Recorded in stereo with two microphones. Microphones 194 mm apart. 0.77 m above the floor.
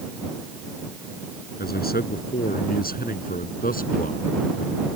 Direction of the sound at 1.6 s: 55° left (ahead or behind).